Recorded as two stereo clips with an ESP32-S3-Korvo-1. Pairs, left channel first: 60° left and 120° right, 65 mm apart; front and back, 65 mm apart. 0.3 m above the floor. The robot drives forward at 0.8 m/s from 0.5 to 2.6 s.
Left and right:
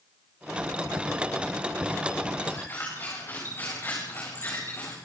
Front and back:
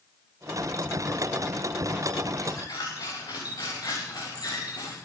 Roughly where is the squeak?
Ahead.